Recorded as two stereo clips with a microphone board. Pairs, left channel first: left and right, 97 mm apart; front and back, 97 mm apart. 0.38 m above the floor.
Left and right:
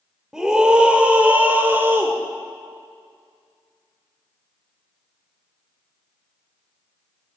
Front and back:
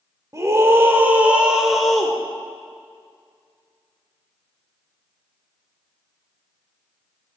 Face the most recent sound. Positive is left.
turn(degrees=-75)